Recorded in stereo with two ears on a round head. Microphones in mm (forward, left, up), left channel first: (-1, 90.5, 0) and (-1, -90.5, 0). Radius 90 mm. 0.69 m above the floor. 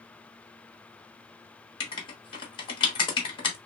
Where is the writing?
25° left (ahead or behind), 0.9 m.